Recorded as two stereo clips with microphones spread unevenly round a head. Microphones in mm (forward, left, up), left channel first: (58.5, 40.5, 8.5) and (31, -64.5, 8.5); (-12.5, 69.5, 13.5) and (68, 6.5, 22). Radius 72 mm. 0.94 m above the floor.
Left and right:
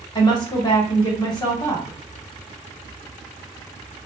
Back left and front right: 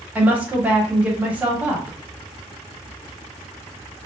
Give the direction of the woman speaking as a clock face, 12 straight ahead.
11 o'clock.